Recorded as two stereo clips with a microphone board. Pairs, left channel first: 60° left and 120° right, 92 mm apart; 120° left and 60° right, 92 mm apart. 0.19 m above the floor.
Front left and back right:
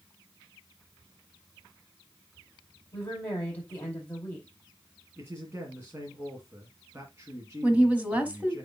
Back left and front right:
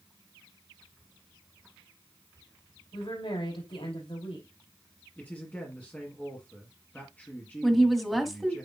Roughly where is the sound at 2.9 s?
Behind left.